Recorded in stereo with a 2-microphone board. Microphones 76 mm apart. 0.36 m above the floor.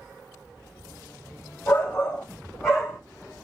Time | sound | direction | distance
1.7 | a shout | 30° left (ahead or behind) | 1.3 m